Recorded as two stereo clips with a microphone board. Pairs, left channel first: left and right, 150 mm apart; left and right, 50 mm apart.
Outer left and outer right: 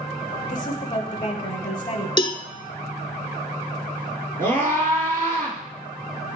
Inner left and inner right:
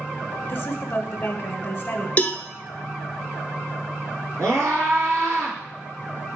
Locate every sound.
0.5 s a woman speaking: 30° left (ahead or behind), 1.1 m
2.2 s a cowbell: 30° left (ahead or behind), 0.6 m
4.4 s a scream: 55° right (ahead or behind), 3.5 m